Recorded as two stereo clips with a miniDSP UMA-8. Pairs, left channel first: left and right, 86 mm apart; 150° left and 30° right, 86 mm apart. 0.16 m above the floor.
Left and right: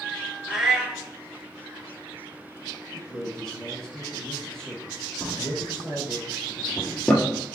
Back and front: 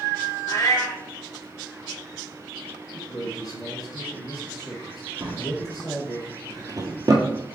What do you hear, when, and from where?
0.5 s a cat meowing: 170° right, 0.9 m
2.9 s a man speaking: 170° left, 2.0 m
5.2 s a drawer: 10° left, 0.9 m